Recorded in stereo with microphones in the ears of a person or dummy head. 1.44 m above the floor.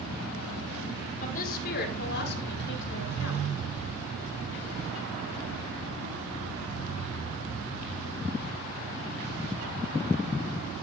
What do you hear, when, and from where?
1.2 s a woman speaking: 45° left (ahead or behind), 5 m; by 3.5 s 75° left (ahead or behind), 5 m